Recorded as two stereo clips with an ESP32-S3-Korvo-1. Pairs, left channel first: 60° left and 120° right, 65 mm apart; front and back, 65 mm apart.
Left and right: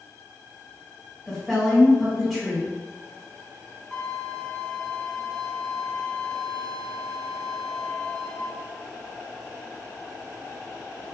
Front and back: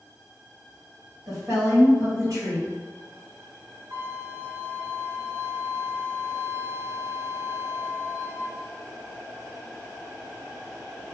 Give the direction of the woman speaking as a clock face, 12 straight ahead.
7 o'clock.